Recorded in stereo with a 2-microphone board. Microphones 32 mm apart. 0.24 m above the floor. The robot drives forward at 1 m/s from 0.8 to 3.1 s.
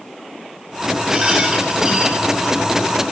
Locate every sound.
1.1 s a rattle: 15° right (ahead or behind), 3.5 m; by 2.5 s 10° right (ahead or behind), 5 m